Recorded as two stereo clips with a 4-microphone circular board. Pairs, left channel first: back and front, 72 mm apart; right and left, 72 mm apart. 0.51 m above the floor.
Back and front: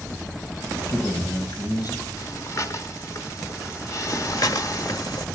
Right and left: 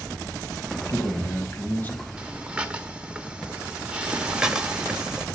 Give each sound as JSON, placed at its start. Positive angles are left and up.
{"t": 0.8, "sound": "a man speaking", "azimuth_deg": -135, "distance_m": 3.5}
{"t": 2.2, "sound": "breathing", "azimuth_deg": 160, "distance_m": 1.4}
{"t": 4.1, "sound": "breathing", "azimuth_deg": 170, "distance_m": 1.5}